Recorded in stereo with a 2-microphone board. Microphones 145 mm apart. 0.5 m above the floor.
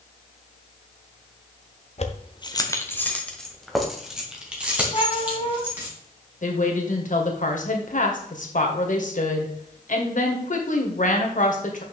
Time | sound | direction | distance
2.0 | keys jangling | 50° left (ahead or behind) | 0.9 m
4.9 | a cat meowing | 40° left (ahead or behind) | 2.0 m
6.4 | a woman speaking | 65° left (ahead or behind) | 1.9 m